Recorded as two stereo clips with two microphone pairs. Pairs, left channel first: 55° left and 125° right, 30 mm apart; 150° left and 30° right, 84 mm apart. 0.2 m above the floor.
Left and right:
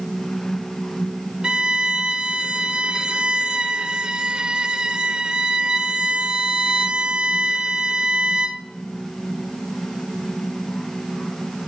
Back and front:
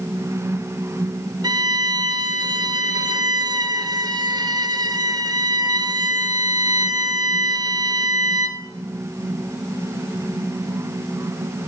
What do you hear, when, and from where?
1.4 s a violin: 65° right, 0.8 m